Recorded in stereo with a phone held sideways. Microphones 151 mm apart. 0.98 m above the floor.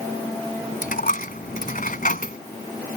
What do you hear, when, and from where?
0.8 s a dropped coin: 65° left (ahead or behind)